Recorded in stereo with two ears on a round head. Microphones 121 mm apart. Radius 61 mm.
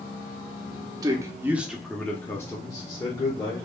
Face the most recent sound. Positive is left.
turn(degrees=35)  # may be behind; listen again after turning